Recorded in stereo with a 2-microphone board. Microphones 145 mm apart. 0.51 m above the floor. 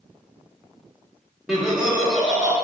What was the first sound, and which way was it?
Laughter, 10° right (ahead or behind).